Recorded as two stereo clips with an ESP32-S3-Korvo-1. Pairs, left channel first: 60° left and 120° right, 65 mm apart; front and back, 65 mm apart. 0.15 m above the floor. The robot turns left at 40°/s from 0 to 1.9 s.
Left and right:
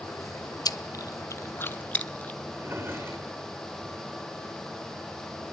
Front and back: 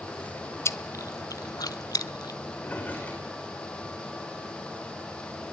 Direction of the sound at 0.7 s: 45° left.